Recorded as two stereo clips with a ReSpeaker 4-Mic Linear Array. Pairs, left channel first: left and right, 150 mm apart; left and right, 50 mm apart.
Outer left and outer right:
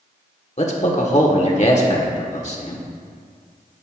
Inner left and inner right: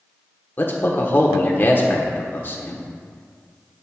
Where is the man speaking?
50° left (ahead or behind), 1.6 m.